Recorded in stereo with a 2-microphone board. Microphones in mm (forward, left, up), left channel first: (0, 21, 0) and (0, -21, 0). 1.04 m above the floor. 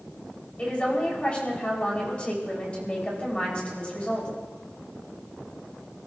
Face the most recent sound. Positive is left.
turn(degrees=25)  # may be behind; listen again after turning